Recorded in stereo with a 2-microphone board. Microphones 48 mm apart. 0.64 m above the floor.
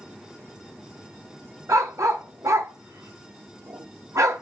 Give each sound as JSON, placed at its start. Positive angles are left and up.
{"t": 1.7, "sound": "a dog barking", "side_deg": -80, "distance_m": 0.6}